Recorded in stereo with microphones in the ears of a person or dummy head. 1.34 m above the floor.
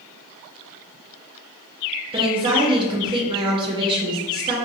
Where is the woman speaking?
25° right (ahead or behind), 0.9 m.